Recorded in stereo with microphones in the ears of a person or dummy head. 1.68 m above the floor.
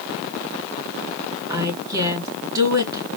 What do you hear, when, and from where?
1.5 s a woman speaking: 15° right (ahead or behind), 3.5 m